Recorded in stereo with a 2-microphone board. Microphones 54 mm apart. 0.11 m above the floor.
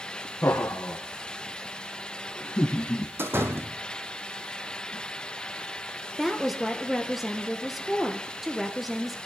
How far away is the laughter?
About 4 m.